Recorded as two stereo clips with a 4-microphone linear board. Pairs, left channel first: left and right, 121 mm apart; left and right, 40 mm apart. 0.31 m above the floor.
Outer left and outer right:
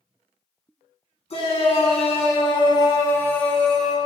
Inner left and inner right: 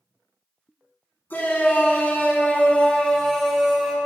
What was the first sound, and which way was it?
A shout, 60° left (ahead or behind).